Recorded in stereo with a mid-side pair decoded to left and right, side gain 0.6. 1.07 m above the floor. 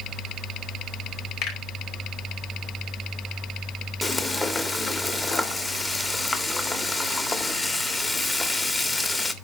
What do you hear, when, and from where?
1.4 s a finger snap: 65° left, 5.5 m
4.0 s frying: 15° left, 1.7 m